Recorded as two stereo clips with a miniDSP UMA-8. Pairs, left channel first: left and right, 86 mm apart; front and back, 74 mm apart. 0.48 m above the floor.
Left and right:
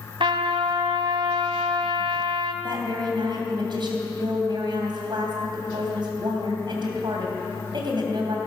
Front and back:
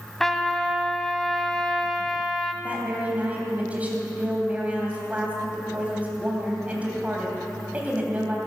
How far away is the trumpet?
About 1.0 m.